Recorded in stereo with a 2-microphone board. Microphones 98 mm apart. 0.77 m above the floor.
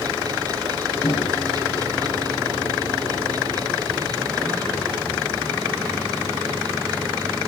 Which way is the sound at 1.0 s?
60° left (ahead or behind).